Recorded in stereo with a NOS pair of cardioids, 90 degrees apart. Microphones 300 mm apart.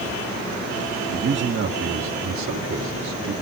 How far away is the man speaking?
About 1.9 m.